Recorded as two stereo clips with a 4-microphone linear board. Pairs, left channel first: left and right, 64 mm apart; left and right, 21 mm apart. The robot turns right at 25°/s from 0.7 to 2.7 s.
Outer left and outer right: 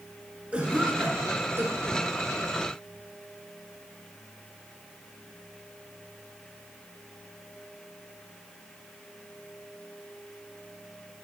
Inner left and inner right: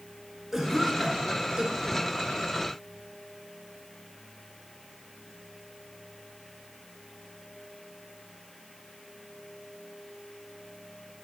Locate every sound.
0.5 s a cough: 15° right (ahead or behind), 2.0 m; by 2.1 s 45° right (ahead or behind), 2.0 m